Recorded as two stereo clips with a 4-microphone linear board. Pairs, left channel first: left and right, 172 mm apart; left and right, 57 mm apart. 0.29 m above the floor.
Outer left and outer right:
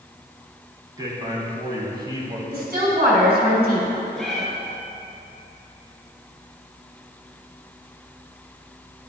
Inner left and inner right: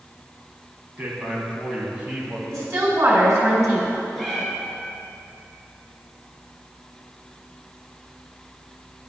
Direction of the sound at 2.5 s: 55° right (ahead or behind).